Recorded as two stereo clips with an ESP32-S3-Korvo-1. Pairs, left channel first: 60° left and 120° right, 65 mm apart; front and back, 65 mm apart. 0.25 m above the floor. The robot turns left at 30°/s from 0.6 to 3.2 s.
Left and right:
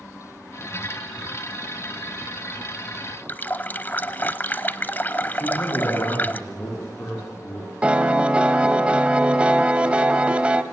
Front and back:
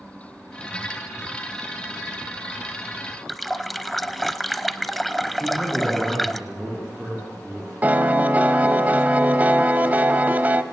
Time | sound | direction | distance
3.3 | a running tap | 85° left | 0.8 m
5.4 | a man speaking | 100° left | 9 m
7.8 | a piano | 165° right | 1.1 m